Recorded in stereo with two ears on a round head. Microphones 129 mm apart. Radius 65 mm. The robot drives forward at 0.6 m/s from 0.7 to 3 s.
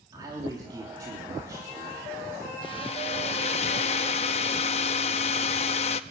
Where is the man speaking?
30° right (ahead or behind), 3 m; by 2.5 s 20° right (ahead or behind), 4 m.